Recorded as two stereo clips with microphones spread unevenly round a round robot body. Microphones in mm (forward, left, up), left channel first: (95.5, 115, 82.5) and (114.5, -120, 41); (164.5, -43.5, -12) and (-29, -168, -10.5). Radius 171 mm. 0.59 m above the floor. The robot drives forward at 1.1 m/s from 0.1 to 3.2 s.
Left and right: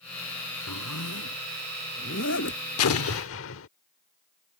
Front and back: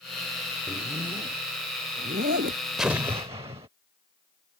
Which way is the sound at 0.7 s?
135° left.